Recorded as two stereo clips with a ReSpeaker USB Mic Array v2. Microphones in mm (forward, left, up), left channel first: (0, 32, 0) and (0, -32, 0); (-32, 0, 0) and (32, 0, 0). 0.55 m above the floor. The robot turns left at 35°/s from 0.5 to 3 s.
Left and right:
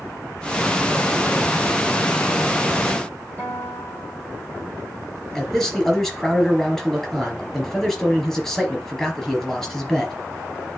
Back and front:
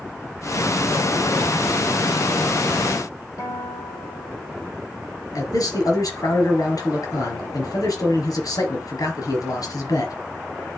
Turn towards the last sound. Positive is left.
turn(degrees=170)